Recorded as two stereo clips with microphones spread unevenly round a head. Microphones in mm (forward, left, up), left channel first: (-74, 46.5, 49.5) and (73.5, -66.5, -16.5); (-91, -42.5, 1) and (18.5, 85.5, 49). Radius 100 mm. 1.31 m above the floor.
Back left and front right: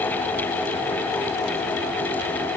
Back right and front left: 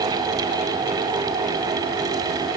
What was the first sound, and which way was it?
Only background noise.